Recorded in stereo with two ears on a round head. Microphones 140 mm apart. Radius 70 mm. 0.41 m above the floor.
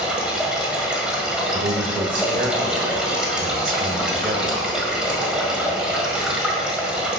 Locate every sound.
0.0 s running water: 5° right (ahead or behind), 1.8 m
1.5 s a man speaking: 55° right (ahead or behind), 1.2 m